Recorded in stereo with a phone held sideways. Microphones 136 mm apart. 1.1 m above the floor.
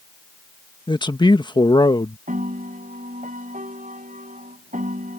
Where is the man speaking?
35° left (ahead or behind).